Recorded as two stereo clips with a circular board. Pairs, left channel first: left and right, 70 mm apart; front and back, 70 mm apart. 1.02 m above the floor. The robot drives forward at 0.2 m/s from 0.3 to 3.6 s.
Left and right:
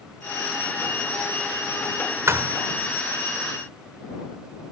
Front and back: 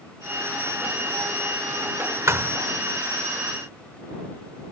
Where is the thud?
135° right.